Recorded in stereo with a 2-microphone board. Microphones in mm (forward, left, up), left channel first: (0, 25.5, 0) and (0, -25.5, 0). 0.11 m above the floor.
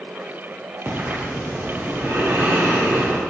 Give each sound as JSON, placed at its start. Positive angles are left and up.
{"t": 0.8, "sound": "breathing", "side_deg": -60, "distance_m": 3.0}